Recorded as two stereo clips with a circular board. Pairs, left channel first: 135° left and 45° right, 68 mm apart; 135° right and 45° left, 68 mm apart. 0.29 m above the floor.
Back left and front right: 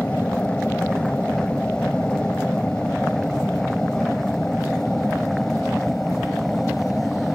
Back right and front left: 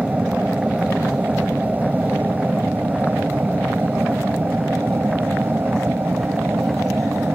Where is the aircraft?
85° left; by 7.4 s 55° left.